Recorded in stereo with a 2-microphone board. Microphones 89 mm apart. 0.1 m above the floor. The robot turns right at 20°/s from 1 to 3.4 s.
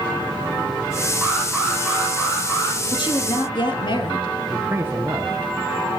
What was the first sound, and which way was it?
An alarm, 10° right.